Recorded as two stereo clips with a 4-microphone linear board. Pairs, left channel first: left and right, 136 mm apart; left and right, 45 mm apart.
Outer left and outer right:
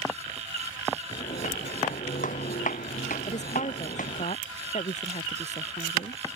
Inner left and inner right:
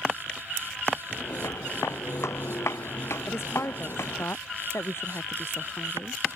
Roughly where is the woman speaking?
Left.